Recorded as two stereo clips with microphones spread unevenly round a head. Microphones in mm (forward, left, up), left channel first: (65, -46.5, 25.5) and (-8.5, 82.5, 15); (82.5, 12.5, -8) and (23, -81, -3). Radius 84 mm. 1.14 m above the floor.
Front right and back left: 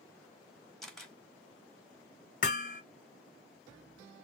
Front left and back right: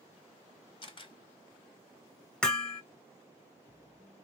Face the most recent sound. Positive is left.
turn(degrees=-25)